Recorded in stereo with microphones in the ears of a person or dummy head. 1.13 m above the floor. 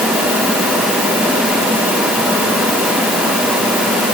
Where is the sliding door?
No sliding door in this recording.